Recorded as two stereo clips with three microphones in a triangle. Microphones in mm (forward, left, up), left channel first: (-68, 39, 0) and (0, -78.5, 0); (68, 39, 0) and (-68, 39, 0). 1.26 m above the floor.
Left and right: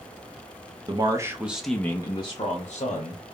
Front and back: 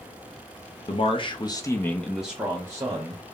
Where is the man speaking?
20° right, 0.7 m; by 3.2 s 120° left, 0.9 m.